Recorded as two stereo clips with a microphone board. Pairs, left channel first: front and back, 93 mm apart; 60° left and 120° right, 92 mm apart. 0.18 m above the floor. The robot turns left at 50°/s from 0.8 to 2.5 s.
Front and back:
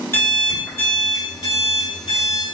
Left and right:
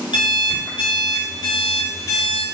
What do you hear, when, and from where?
0.1 s an alarm clock: 55° left, 1.3 m; by 2.4 s 25° right, 1.3 m